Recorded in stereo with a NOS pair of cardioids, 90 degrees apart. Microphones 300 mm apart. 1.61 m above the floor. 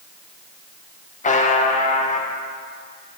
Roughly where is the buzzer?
Ahead left.